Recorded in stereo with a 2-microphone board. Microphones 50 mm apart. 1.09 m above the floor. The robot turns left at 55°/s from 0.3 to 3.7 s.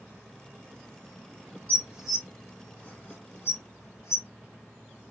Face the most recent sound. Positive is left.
turn(degrees=80)